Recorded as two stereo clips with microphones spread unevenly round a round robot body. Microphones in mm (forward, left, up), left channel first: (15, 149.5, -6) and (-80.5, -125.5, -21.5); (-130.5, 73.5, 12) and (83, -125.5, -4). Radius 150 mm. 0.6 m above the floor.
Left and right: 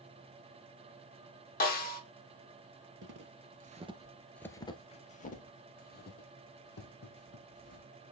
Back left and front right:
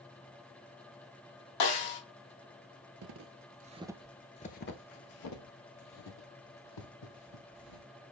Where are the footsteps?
65° right, 0.8 m; by 7.8 s 120° left, 2.5 m.